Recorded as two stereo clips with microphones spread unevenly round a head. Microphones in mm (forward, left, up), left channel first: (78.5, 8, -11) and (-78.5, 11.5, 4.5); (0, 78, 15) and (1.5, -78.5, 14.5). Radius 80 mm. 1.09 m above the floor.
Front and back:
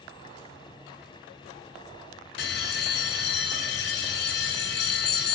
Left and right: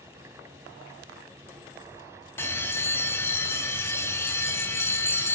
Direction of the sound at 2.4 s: 15° left.